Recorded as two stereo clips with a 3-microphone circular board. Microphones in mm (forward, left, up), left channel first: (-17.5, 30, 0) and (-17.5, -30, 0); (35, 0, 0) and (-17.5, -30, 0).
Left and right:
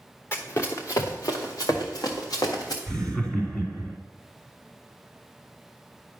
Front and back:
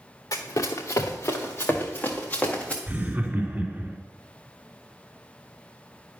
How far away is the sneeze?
I don't hear a sneeze.